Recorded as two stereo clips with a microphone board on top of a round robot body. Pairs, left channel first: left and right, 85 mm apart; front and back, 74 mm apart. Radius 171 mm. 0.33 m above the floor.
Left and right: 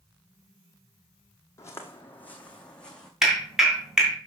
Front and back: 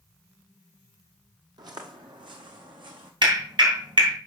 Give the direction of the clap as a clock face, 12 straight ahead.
6 o'clock.